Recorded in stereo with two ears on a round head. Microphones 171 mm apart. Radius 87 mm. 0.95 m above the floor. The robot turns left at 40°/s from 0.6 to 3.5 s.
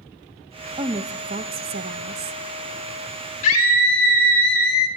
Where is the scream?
40° left (ahead or behind), 2.5 m; by 4.9 s 45° left (ahead or behind), 2.5 m.